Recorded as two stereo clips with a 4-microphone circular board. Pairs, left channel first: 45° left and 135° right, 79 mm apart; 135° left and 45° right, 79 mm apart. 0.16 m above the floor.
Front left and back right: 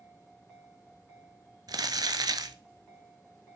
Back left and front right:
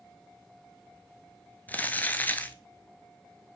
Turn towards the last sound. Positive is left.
turn(degrees=-160)